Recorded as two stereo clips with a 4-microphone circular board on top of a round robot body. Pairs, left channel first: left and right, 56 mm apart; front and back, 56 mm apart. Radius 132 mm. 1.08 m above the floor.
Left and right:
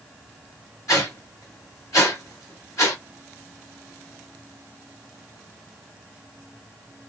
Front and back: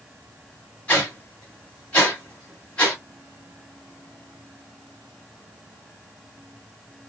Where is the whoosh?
65° left, 1.3 m.